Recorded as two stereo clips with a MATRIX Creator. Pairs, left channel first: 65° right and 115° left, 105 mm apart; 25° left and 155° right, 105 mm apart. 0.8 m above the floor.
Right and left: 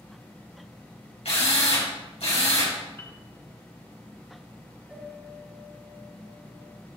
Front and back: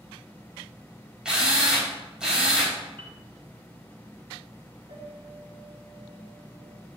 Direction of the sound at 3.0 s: 130° right.